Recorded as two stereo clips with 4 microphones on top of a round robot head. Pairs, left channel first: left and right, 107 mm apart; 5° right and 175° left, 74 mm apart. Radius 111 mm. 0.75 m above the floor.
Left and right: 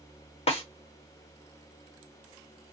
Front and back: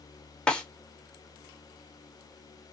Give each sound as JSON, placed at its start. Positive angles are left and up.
{"t": 0.5, "sound": "a snare drum", "azimuth_deg": 75, "distance_m": 1.2}